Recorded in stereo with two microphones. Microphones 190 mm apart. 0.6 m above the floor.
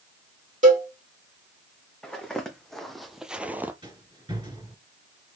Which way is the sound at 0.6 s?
40° right (ahead or behind).